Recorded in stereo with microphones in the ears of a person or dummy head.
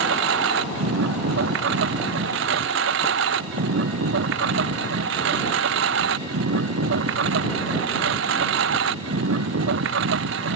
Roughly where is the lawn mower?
Right.